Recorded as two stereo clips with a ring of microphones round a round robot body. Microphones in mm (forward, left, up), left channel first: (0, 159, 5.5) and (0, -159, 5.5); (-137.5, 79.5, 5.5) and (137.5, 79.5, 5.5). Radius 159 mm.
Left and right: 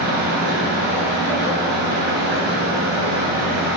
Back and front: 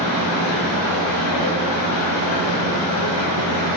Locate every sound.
0.0 s running water: 150° right, 2 m